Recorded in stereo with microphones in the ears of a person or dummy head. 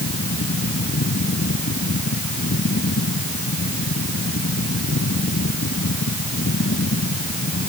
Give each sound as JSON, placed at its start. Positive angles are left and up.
{"t": 0.0, "sound": "a fan", "side_deg": 60}